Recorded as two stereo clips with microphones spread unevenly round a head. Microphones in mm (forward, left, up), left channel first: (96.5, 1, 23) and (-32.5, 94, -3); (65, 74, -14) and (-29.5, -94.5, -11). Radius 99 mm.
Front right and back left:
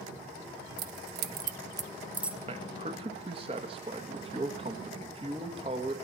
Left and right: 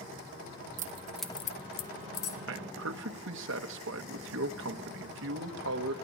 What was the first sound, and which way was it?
Keys jangling, 170° right.